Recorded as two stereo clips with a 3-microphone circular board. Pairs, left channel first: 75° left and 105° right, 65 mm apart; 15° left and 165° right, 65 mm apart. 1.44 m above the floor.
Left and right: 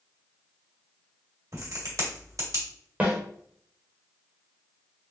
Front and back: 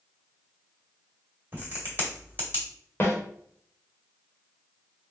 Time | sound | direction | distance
1.5 | a crack | 110° right | 1.8 m
3.0 | a snare drum | 40° right | 1.3 m